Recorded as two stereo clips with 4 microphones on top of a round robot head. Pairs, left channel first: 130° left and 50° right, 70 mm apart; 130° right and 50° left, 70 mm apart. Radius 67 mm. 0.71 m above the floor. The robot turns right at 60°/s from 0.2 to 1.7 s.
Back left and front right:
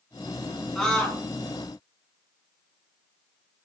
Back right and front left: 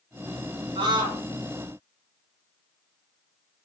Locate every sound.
0.8 s a scream: 40° left, 7.5 m; by 1.2 s 70° left, 7.5 m